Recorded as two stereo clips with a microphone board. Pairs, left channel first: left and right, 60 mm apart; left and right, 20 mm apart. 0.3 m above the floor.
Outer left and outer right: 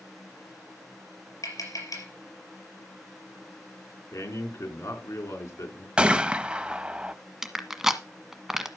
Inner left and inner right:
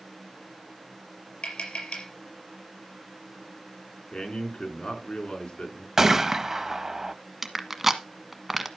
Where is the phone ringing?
No phone ringing in this recording.